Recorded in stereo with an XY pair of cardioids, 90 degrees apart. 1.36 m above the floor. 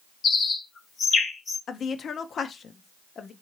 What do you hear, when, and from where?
0.2 s a bird: 65° left, 1.3 m
1.7 s a woman speaking: 60° left, 0.6 m